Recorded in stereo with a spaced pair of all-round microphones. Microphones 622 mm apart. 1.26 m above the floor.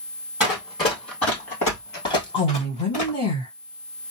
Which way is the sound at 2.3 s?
40° left (ahead or behind).